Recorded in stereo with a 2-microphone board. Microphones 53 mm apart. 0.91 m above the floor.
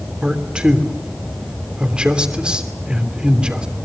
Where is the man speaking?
20° right (ahead or behind), 3 m.